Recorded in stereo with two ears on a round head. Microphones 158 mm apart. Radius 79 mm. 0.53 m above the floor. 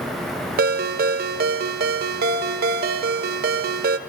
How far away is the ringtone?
About 0.5 m.